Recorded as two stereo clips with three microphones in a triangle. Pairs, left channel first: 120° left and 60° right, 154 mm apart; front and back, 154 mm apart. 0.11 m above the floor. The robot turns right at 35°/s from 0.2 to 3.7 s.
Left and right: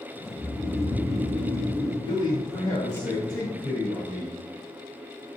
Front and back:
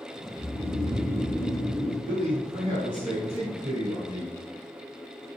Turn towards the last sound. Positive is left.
turn(degrees=-140)